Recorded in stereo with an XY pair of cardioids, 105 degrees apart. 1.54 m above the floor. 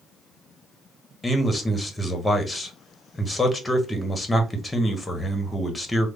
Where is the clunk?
No clunk in this recording.